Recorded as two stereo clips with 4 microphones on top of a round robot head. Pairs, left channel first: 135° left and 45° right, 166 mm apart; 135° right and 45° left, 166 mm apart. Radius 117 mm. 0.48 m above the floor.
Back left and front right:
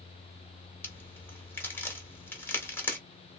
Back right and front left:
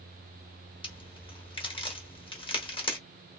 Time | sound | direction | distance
0.8 | a crack | 155° right | 1.5 m